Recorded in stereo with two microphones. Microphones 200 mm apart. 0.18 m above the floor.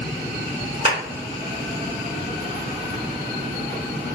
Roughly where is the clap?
Right.